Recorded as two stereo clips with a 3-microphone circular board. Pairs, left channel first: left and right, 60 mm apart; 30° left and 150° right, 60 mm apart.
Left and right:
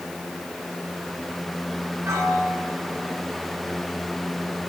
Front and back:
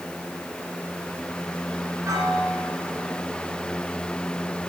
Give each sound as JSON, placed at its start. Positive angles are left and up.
{"t": 2.0, "sound": "a piano", "azimuth_deg": -125, "distance_m": 5.0}